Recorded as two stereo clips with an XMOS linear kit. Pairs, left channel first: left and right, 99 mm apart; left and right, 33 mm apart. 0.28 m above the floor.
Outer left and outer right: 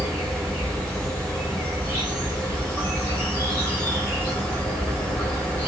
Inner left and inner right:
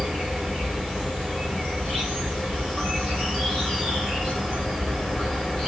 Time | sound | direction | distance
0.0 | an insect | 20° left (ahead or behind) | 2.5 m